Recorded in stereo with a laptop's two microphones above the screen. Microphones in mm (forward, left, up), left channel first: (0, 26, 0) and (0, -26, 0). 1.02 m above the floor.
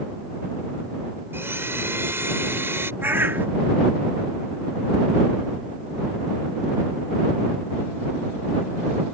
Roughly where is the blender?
Right.